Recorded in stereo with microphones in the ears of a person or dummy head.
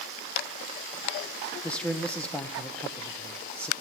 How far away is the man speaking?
About 1.0 m.